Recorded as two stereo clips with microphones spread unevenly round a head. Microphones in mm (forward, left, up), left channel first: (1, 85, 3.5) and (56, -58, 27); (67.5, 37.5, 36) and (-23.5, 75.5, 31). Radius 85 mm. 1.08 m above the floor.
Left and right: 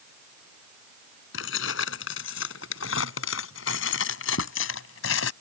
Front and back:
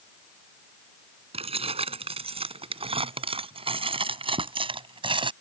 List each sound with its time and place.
1.3 s keys jangling: 130° left; by 5.3 s 120° left